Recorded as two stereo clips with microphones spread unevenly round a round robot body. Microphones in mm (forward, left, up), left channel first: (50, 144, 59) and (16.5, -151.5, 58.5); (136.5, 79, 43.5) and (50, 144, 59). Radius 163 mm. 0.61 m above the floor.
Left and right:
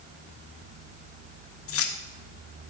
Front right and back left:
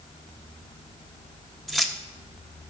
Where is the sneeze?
No sneeze in this recording.